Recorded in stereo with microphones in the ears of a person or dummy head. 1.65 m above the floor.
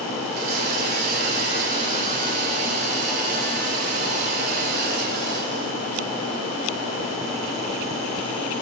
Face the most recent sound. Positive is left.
turn(degrees=-55)  # may be behind; listen again after turning